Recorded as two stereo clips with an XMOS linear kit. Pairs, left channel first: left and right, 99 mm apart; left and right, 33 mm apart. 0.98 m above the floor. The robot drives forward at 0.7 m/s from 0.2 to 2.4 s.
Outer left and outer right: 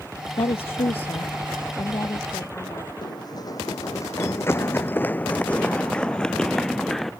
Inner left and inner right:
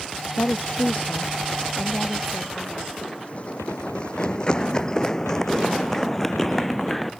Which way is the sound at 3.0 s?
45° left (ahead or behind).